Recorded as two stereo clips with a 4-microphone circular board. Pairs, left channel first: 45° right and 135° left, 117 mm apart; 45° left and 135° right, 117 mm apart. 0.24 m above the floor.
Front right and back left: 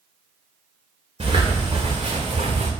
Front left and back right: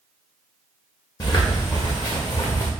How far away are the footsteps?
About 1.8 m.